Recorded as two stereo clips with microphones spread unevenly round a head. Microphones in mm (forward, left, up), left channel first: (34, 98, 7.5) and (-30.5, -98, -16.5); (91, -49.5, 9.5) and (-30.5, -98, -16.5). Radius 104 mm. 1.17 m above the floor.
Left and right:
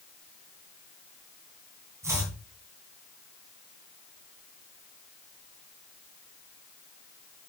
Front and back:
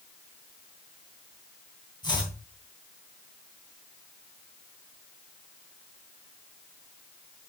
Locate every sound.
2.0 s chopping: 30° right, 3.5 m